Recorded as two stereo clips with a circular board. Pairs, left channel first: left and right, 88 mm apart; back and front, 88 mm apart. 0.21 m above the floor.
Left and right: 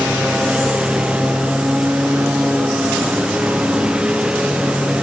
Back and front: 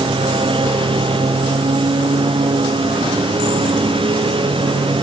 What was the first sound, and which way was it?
A lawn mower, 10° right.